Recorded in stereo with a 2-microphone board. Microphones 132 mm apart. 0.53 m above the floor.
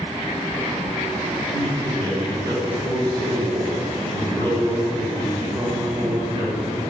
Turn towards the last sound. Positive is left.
turn(degrees=-35)  # may be behind; listen again after turning